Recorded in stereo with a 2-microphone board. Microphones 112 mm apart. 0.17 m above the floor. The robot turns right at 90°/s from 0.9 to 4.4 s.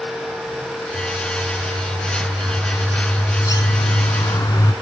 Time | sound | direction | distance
0.9 | a bird | straight behind | 1.4 m